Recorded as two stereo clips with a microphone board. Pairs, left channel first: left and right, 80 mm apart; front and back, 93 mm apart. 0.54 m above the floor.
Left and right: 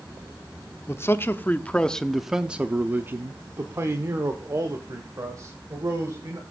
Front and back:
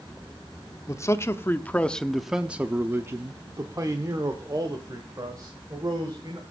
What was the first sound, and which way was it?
A man speaking, 45° left.